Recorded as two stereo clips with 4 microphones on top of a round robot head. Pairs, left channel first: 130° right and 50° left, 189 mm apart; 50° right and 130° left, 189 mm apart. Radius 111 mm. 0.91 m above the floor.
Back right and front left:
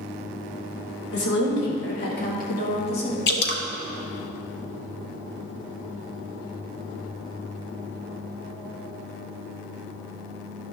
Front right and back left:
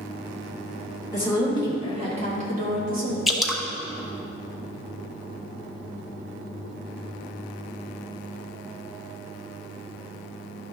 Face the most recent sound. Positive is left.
turn(degrees=-140)